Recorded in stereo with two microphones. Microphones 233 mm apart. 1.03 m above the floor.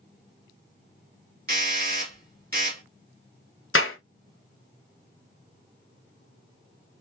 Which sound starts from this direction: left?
A clap, at 3.8 s.